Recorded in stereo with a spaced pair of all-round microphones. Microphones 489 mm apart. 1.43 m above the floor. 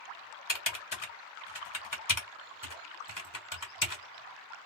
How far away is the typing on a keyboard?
About 1.3 m.